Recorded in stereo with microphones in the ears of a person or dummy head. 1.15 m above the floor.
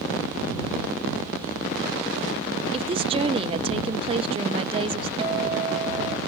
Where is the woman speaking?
25° right (ahead or behind).